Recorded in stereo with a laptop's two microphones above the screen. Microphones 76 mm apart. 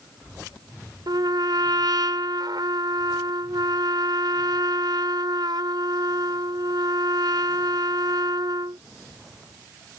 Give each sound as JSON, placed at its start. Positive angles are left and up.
{"t": 1.1, "sound": "a trumpet", "side_deg": -70}